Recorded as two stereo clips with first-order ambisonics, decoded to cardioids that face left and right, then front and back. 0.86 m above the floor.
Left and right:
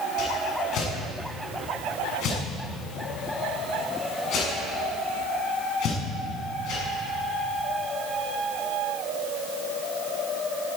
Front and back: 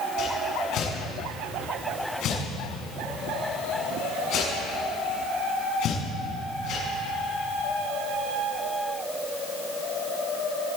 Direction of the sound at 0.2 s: 45° left.